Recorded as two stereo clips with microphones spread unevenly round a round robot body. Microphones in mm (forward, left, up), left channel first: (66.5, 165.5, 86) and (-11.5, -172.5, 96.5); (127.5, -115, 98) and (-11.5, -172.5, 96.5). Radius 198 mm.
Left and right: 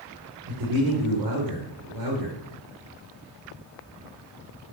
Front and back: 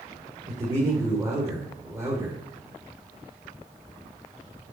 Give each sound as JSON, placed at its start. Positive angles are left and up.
{"t": 0.5, "sound": "a man speaking", "azimuth_deg": -90, "distance_m": 2.5}